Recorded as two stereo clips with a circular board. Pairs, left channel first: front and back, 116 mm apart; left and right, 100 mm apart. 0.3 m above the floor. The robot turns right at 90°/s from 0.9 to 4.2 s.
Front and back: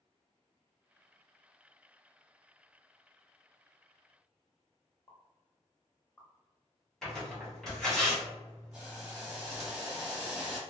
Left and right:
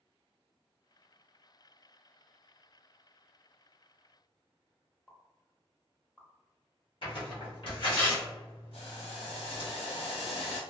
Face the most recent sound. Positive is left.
turn(degrees=100)